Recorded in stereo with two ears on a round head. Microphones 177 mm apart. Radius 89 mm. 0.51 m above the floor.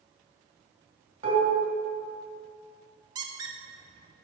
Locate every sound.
1.2 s dishes clattering: 35° right (ahead or behind), 1.9 m
3.1 s a squeak: 20° right (ahead or behind), 0.5 m